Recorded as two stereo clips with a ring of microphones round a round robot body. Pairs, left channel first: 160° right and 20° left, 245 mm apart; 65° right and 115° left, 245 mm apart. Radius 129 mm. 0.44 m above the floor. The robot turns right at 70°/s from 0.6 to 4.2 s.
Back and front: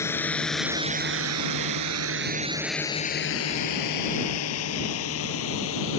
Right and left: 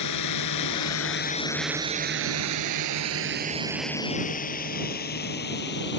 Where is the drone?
75° right; by 6.0 s 115° right.